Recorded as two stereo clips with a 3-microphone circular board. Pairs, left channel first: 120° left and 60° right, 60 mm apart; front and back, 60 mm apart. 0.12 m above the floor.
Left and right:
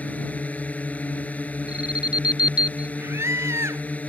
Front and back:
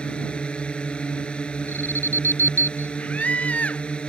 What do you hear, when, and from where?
0.0 s a drone: 65° left
1.7 s an alarm: 5° left
3.0 s a scream: 55° right